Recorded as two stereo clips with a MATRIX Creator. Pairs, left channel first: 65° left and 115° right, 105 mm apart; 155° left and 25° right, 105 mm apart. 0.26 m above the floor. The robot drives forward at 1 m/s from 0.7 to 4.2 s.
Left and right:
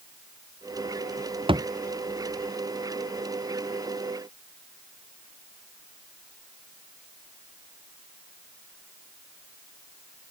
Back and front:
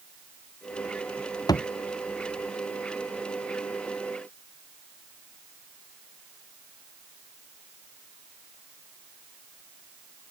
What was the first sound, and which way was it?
A thud, 150° right.